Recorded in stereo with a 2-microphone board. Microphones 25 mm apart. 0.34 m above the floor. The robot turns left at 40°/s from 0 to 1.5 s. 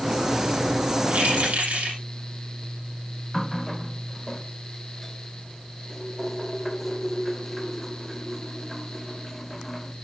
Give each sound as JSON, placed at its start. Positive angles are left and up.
{"t": 1.1, "sound": "keys jangling", "side_deg": -70, "distance_m": 8.0}
{"t": 3.3, "sound": "a running tap", "side_deg": 0, "distance_m": 0.8}